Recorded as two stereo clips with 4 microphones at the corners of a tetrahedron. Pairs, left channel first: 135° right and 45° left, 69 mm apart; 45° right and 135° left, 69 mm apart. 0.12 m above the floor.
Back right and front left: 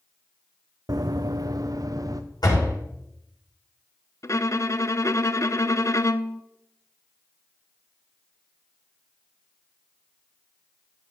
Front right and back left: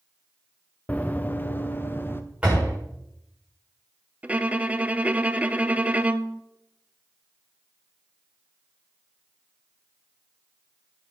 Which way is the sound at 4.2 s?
160° right.